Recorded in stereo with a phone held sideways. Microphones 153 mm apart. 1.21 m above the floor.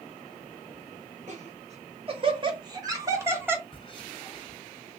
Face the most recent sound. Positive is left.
turn(degrees=35)  # may be behind; listen again after turning